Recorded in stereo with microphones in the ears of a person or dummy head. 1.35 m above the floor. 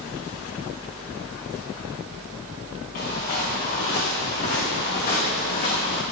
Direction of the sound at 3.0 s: 45° left (ahead or behind).